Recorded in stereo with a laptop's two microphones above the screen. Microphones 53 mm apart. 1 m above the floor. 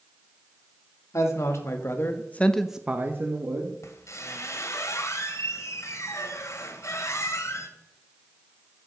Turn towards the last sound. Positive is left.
turn(degrees=70)  # may be behind; listen again after turning